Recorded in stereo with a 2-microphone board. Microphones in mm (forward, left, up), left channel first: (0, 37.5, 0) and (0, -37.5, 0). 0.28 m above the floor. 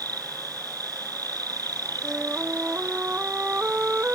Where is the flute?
20° right (ahead or behind).